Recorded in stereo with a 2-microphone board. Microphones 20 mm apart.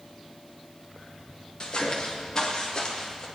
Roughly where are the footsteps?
Left.